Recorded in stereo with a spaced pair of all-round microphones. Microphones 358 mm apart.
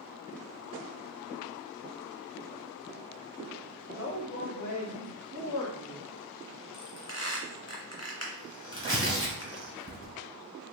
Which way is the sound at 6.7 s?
15° left (ahead or behind).